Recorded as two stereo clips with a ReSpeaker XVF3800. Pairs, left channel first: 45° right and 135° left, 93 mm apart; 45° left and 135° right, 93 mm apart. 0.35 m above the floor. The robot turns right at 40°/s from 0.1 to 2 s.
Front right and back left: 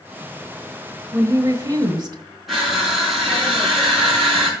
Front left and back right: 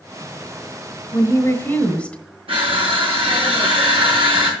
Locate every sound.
1.1 s a woman speaking: 85° left, 1.2 m; by 2.2 s 120° left, 1.2 m
2.5 s crushing: 140° right, 4.5 m